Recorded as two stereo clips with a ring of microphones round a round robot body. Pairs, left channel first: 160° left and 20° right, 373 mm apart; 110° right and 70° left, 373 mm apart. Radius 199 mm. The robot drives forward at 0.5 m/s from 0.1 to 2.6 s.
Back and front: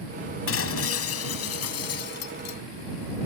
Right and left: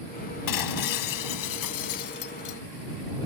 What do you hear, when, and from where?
0.5 s breaking glass: 145° right; by 2.6 s 155° right